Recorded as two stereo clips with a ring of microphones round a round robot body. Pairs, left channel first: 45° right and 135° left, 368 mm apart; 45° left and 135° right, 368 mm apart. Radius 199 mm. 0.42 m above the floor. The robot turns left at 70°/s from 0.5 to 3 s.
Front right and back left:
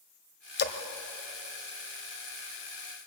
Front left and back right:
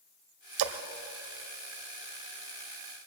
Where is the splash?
105° right, 1.5 m; by 0.8 s 120° right, 1.5 m.